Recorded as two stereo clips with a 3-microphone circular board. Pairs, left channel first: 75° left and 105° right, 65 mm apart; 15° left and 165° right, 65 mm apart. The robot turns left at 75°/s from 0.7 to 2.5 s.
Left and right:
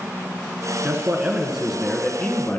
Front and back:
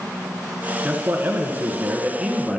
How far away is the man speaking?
About 1.2 m.